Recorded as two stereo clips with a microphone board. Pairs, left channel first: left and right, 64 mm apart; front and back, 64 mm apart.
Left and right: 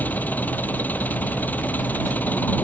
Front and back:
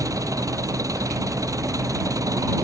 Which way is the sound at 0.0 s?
155° left.